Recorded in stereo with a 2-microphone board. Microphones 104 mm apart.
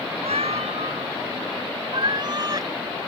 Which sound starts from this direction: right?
A cat meowing, at 0.2 s.